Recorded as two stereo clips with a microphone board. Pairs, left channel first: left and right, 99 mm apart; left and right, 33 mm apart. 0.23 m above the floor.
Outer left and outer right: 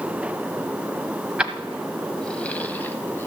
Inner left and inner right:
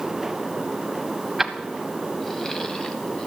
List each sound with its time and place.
1.4 s keys jangling: 10° right (ahead or behind), 0.9 m; by 3.3 s 25° left (ahead or behind), 1.2 m